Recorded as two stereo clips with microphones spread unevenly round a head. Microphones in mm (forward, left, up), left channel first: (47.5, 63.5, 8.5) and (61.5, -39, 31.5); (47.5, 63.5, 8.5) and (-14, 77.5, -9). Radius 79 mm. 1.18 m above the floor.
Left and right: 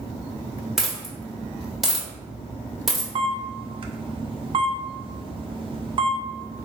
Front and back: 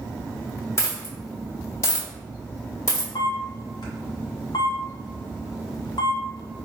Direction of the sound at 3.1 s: 40° right.